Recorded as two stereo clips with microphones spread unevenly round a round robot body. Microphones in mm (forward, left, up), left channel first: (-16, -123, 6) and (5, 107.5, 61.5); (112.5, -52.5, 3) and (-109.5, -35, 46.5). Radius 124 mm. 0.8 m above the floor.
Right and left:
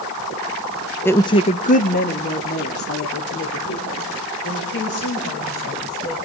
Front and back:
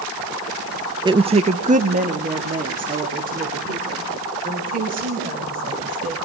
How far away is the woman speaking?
About 0.9 m.